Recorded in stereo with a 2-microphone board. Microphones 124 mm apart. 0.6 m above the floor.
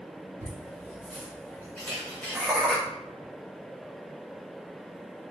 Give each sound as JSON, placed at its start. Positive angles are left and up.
{"t": 0.4, "sound": "laughter", "side_deg": -50, "distance_m": 1.5}
{"t": 1.8, "sound": "a camera shutter", "side_deg": 15, "distance_m": 1.8}